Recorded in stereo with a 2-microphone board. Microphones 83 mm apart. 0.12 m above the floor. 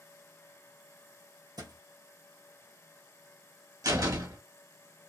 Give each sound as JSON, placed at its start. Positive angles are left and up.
{"t": 1.6, "sound": "a thud", "side_deg": -55, "distance_m": 1.2}
{"t": 3.8, "sound": "a door slam", "side_deg": -45, "distance_m": 1.5}